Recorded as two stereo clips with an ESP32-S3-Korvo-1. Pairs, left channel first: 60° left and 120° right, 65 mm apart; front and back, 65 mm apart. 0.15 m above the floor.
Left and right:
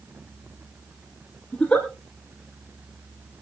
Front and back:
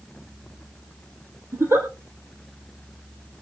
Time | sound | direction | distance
1.5 | a giggle | 135° left | 4 m